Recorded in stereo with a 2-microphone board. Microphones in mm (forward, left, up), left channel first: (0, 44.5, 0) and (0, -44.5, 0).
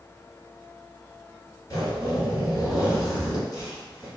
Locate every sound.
1.7 s a zipper: 45° left (ahead or behind), 1.3 m